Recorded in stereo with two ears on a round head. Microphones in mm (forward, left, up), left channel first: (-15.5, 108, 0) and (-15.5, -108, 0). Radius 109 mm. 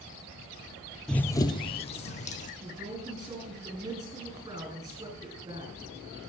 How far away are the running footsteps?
About 0.6 m.